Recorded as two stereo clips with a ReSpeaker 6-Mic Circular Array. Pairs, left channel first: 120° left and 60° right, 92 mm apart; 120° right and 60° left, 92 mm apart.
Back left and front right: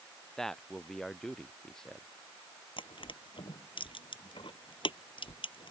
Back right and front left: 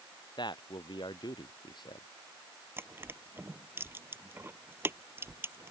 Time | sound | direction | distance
0.4 | a man speaking | 155° right | ?
2.8 | crushing | 125° left | ?